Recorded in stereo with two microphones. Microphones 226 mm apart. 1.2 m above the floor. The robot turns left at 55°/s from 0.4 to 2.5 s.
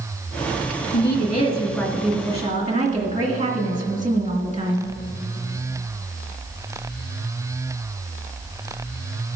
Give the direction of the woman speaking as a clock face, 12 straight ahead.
10 o'clock.